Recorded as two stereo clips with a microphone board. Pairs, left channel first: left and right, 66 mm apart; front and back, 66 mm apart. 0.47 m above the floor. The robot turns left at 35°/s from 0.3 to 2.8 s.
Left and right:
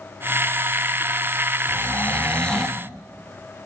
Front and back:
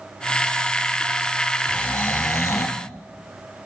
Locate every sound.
1.7 s snoring: 45° left, 1.2 m; by 2.8 s 10° left, 1.2 m